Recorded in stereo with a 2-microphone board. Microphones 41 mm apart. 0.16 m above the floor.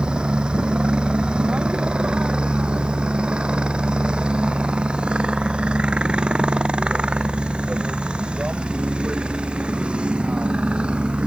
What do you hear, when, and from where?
0.0 s a helicopter: 20° right (ahead or behind); by 11.3 s 25° right (ahead or behind)